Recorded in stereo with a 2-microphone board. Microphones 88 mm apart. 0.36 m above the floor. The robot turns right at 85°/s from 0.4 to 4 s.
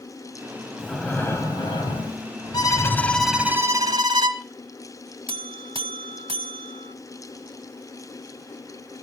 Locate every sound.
0.8 s breathing: 5° right, 2.5 m; by 3.5 s 135° right, 2.5 m
2.5 s a violin: 120° left, 1.7 m; by 4.4 s 115° right, 1.7 m
5.3 s a buzzer: 75° right (ahead or behind), 0.5 m